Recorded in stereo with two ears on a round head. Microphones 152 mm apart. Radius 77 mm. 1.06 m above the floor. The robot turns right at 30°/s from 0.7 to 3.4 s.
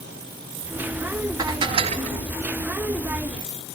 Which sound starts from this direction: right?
Dishes clattering, at 1.4 s.